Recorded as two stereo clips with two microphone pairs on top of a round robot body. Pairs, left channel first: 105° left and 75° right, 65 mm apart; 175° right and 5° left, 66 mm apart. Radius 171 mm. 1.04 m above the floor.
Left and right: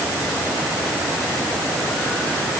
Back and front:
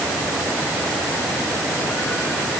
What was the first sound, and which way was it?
Only background noise.